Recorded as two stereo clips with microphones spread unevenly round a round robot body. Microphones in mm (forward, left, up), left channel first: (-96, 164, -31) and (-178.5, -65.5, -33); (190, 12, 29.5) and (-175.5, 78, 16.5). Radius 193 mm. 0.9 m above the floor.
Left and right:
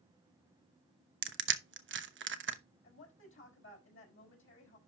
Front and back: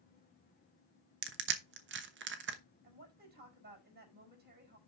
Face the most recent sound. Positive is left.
turn(degrees=105)